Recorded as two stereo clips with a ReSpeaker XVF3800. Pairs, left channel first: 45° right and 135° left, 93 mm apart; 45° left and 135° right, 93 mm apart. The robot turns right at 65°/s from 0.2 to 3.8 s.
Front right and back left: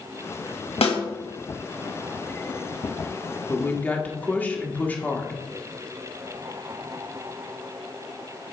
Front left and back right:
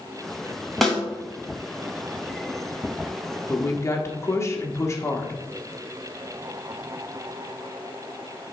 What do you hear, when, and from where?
0.8 s a snare drum: 45° right, 2.5 m; by 1.0 s 35° right, 2.5 m
3.5 s a woman speaking: 5° right, 1.3 m; by 5.4 s 15° left, 1.3 m